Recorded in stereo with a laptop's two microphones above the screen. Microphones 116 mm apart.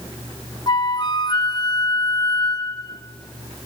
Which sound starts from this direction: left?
A flute, at 0.7 s.